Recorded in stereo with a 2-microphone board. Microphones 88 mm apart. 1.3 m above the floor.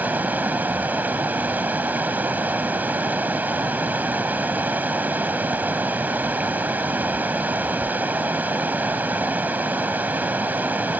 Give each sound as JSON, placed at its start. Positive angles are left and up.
{"t": 0.0, "sound": "running water", "side_deg": -20}